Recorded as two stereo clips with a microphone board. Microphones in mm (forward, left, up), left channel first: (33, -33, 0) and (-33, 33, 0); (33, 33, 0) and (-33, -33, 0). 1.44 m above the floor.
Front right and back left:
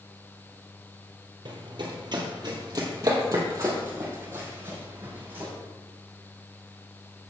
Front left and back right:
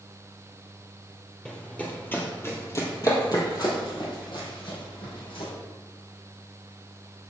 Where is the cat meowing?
I don't hear a cat meowing.